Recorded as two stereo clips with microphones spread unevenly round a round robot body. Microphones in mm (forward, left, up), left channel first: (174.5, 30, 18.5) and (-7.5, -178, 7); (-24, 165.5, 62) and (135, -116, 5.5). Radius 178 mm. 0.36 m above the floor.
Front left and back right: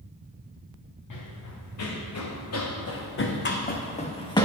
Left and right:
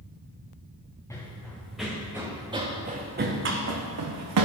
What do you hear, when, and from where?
1.1 s running footsteps: 40° left, 2 m; by 4.5 s 25° right, 1.5 m